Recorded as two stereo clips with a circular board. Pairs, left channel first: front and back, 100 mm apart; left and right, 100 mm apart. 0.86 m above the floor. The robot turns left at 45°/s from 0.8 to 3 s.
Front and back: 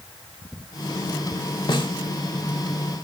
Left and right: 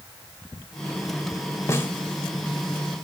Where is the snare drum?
35° left, 1.0 m; by 1.9 s 25° left, 1.0 m.